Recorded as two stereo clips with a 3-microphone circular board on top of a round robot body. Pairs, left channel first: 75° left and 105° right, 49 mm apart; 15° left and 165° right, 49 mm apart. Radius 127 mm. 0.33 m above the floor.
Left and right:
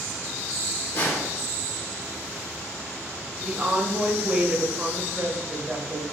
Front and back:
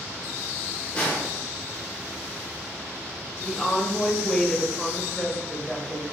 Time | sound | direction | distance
0.9 | a snare drum | 85° left | 1.4 m
3.4 | a woman speaking | 65° right | 0.9 m